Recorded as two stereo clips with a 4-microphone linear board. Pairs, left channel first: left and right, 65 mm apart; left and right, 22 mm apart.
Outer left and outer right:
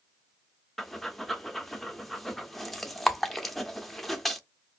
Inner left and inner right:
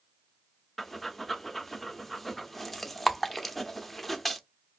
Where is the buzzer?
No buzzer in this recording.